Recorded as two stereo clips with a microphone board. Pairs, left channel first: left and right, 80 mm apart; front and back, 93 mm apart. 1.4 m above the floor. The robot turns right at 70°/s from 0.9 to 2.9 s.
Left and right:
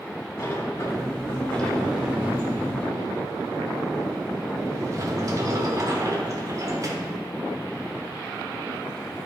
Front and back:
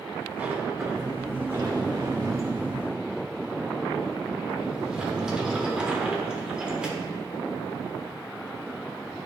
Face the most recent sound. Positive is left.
turn(degrees=-105)